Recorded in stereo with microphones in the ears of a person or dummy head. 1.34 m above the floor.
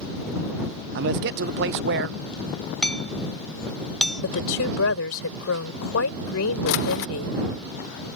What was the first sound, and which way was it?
A man speaking, 60° right (ahead or behind).